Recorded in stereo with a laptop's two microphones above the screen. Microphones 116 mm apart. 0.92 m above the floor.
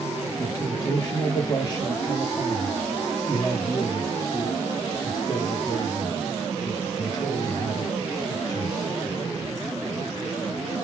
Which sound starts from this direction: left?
A man speaking, at 0.4 s.